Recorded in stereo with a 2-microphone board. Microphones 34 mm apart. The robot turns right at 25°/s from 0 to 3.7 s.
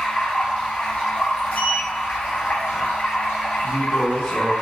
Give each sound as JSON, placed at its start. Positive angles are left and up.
{"t": 0.0, "sound": "running water", "azimuth_deg": 10, "distance_m": 1.5}
{"t": 1.5, "sound": "a sliding door", "side_deg": 50, "distance_m": 1.5}
{"t": 3.6, "sound": "a woman speaking", "side_deg": 25, "distance_m": 1.6}